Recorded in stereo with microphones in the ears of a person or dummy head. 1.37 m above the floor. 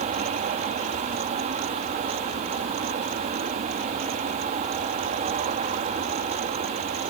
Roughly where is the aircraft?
Right.